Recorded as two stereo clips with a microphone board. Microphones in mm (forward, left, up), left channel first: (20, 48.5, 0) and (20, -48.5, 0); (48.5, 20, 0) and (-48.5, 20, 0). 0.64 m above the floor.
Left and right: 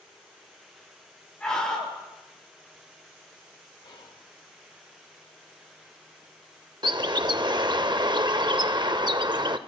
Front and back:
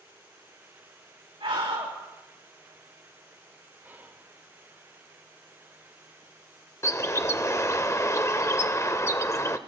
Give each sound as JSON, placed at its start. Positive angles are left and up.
{"t": 1.4, "sound": "a scream", "azimuth_deg": 170, "distance_m": 4.5}
{"t": 3.8, "sound": "whispering", "azimuth_deg": 115, "distance_m": 1.9}
{"t": 6.8, "sound": "a bird", "azimuth_deg": -55, "distance_m": 0.5}